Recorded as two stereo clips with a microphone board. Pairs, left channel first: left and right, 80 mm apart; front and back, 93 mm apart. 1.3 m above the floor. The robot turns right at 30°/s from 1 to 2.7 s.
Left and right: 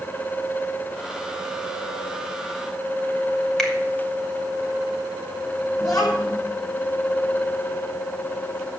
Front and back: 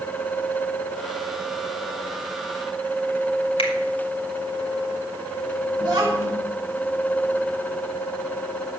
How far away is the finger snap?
About 2.5 m.